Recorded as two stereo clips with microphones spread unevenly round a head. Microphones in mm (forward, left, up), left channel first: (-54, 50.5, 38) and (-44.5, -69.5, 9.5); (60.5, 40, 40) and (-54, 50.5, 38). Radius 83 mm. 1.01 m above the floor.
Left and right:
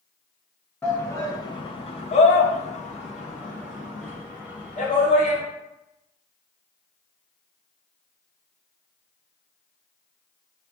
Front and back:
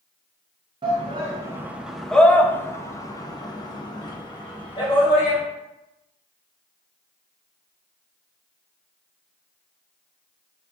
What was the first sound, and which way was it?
A shout, straight behind.